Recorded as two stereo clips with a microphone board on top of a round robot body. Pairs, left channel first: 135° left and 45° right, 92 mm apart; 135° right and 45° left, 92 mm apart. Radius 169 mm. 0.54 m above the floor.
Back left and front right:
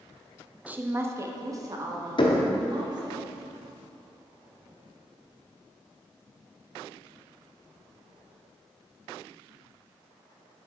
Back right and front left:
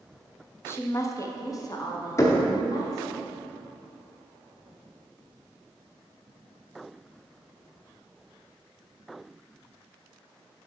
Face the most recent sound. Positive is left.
turn(degrees=165)